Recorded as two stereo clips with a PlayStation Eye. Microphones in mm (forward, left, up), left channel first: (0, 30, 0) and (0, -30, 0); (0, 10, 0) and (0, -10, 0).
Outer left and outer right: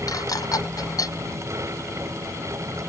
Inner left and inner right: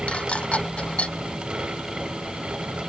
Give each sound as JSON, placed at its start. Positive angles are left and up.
{"t": 0.1, "sound": "dishes clattering", "side_deg": 70}